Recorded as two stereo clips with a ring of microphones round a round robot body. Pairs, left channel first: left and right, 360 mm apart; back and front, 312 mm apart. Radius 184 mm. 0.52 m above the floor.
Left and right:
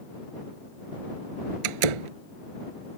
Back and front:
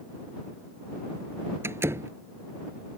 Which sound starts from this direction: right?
A door slam, at 1.6 s.